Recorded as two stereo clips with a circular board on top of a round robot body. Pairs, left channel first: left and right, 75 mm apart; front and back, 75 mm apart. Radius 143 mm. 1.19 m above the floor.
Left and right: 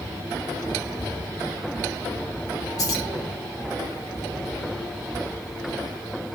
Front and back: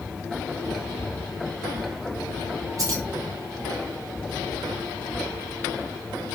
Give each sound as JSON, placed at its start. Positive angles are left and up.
{"t": 2.8, "sound": "keys jangling", "azimuth_deg": 135, "distance_m": 0.9}